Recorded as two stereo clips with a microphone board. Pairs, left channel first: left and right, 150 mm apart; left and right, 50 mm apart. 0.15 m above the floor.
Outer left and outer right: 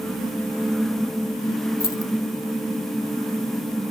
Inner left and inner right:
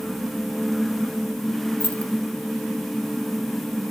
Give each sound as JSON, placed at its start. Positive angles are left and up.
{"t": 1.8, "sound": "keys jangling", "side_deg": 25, "distance_m": 0.8}